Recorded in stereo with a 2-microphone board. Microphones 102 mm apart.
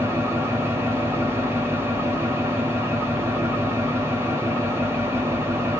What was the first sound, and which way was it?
An engine running, 25° right (ahead or behind).